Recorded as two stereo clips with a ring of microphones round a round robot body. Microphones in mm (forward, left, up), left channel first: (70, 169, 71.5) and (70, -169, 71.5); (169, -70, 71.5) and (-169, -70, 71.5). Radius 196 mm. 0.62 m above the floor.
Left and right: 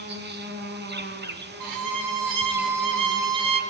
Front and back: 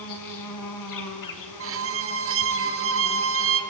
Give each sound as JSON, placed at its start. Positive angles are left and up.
{"t": 0.0, "sound": "an insect", "azimuth_deg": -30, "distance_m": 4.0}
{"t": 1.6, "sound": "a violin", "azimuth_deg": -130, "distance_m": 2.5}